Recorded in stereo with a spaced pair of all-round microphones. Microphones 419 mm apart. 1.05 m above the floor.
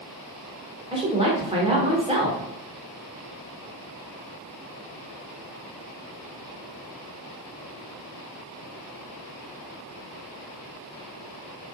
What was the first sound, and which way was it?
A woman speaking, 15° right (ahead or behind).